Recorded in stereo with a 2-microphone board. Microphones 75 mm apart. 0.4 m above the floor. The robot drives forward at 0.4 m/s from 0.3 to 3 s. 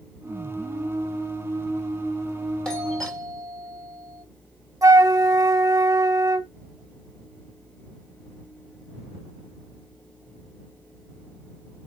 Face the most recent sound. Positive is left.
turn(degrees=-45)  # may be behind; listen again after turning